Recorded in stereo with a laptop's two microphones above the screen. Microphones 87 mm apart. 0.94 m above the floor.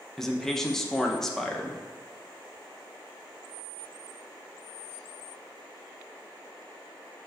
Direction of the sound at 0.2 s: 5° left (ahead or behind).